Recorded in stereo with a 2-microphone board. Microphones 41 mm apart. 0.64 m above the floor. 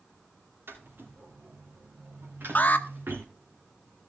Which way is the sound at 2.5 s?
45° left (ahead or behind).